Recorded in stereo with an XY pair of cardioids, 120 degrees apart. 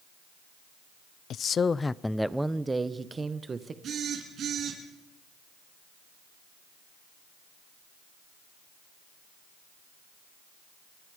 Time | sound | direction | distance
1.3 | a man speaking | 60° left | 0.6 m
3.8 | a phone buzzing | 50° right | 7 m